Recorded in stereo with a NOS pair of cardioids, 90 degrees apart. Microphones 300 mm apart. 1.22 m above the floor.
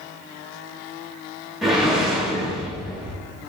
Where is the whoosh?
Straight ahead, 1.2 m.